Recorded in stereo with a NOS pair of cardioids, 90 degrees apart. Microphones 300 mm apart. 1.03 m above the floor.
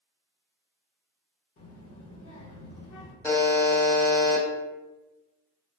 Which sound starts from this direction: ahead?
A buzzer, at 3.2 s.